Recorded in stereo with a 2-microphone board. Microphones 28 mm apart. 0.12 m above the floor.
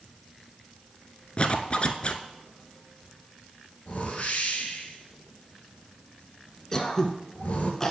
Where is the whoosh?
55° left (ahead or behind), 1.6 m.